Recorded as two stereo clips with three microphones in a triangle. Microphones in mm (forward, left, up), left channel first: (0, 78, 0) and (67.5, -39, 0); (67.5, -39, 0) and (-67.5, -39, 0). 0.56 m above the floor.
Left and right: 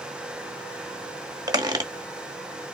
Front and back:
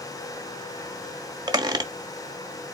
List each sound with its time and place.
1.5 s a squeak: 120° right, 0.8 m